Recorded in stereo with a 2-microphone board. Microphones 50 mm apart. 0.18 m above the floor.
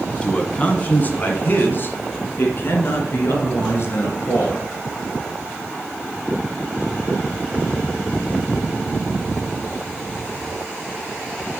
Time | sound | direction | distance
0.2 | a man speaking | 20° left (ahead or behind) | 1.4 m